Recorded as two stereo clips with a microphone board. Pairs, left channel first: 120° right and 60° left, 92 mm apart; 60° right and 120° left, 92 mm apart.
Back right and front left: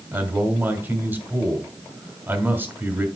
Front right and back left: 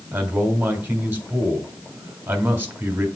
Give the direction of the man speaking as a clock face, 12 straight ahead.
9 o'clock.